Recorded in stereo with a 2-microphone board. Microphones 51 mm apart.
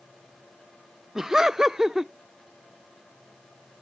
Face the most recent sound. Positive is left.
turn(degrees=-15)  # may be behind; listen again after turning